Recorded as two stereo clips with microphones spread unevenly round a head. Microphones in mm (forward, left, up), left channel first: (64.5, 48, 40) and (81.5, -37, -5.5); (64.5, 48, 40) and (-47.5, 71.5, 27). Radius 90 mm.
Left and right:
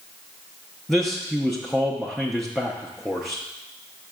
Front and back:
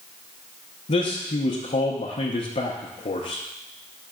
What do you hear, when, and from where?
0.9 s a man speaking: 20° right, 0.7 m